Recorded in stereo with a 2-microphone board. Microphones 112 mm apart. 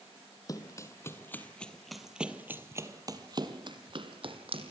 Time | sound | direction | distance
0.5 | running footsteps | 30° left (ahead or behind) | 2 m